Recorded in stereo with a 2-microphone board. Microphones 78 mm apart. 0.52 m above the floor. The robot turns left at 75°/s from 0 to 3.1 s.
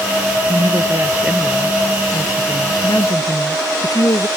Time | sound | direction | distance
0.5 | a woman speaking | 105° right | ?